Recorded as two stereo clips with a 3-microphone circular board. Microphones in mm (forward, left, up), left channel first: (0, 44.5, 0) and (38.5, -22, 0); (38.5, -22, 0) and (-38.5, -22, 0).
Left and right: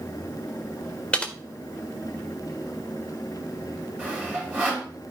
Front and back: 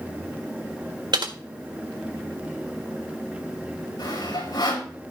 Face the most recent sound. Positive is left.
turn(degrees=5)